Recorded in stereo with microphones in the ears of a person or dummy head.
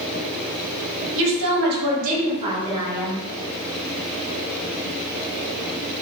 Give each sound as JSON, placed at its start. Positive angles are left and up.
{"t": 1.1, "sound": "a woman speaking", "side_deg": -65, "distance_m": 1.1}